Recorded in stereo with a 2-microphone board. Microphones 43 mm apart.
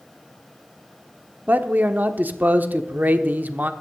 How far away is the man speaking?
About 0.9 m.